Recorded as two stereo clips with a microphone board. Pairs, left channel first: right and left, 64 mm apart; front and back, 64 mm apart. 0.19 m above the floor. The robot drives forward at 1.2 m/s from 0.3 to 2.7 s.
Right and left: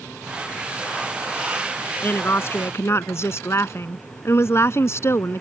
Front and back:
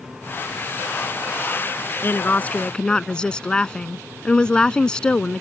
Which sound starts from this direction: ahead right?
A woman speaking, at 2.0 s.